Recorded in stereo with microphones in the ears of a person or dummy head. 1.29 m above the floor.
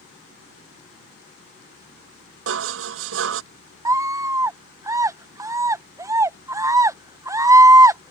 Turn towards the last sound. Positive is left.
turn(degrees=-15)  # may be behind; listen again after turning